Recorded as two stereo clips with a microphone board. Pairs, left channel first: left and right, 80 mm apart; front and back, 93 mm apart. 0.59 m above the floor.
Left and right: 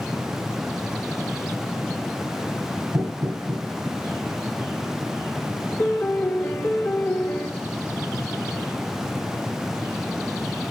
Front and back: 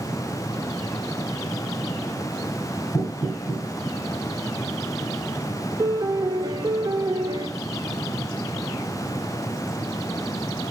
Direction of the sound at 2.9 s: 40° right.